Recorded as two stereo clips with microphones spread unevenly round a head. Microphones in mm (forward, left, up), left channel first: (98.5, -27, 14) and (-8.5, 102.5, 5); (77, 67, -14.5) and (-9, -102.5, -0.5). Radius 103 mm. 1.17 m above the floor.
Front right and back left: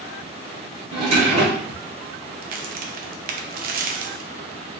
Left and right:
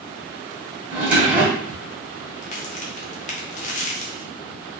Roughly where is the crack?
Left.